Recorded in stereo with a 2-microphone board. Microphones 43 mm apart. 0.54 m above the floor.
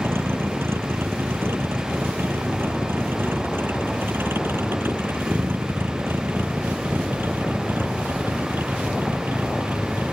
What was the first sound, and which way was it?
A vehicle, 70° right (ahead or behind).